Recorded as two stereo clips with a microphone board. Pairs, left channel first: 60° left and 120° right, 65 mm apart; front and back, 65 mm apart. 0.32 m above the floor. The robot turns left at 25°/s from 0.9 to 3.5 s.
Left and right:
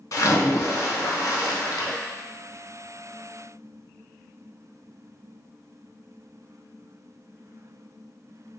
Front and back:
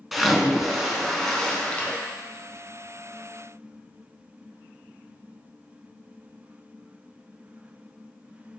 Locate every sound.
0.1 s a splash: 90° left, 0.7 m; by 2.0 s 65° left, 0.7 m